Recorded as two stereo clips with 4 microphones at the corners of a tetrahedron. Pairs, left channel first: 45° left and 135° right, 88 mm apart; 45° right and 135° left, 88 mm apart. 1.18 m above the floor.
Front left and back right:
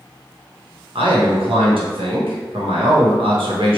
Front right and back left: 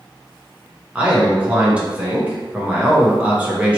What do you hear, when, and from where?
0.9 s a man speaking: 150° right, 1.1 m